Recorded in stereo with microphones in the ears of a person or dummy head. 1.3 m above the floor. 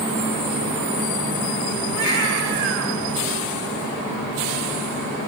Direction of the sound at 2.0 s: 65° right (ahead or behind).